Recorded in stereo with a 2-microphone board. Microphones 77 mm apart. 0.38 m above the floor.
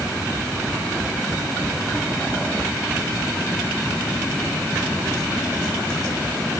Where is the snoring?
I don't hear snoring.